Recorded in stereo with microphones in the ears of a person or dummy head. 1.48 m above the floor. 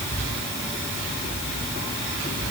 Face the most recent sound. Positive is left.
No sound to turn to.